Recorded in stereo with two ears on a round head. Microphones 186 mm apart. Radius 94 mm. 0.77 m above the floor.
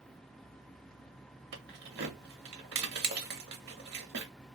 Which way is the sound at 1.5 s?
55° right (ahead or behind).